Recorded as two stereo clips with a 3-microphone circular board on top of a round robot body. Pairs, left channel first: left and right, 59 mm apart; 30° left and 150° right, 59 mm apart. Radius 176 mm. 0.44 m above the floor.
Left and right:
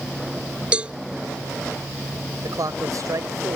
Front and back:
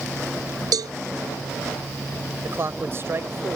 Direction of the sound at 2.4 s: 105° right.